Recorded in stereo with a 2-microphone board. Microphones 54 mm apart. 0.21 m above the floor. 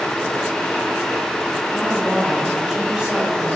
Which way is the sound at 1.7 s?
5° right (ahead or behind).